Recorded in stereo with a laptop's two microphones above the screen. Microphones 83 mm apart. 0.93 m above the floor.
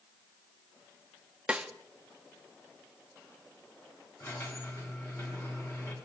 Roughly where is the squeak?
Left.